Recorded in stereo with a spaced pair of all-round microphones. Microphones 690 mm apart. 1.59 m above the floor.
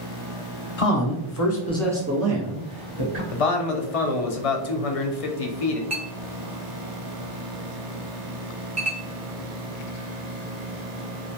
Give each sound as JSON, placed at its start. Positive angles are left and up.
{"t": 0.8, "sound": "a man speaking", "side_deg": 55, "distance_m": 0.8}
{"t": 3.3, "sound": "a man speaking", "side_deg": 55, "distance_m": 0.6}
{"t": 5.9, "sound": "a clink", "side_deg": -25, "distance_m": 0.7}